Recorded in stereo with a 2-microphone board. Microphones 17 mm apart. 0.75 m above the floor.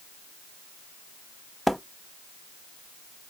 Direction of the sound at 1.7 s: 5° right (ahead or behind).